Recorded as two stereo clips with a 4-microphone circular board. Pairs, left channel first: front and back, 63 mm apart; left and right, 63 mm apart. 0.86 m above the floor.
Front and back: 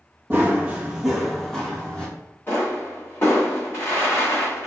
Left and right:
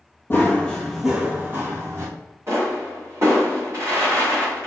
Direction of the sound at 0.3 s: 130° left.